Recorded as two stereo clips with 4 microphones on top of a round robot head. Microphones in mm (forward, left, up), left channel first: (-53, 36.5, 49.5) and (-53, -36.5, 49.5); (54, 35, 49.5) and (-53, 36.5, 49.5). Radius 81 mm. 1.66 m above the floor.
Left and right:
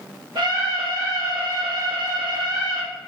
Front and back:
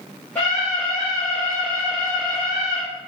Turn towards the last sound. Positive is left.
turn(degrees=-95)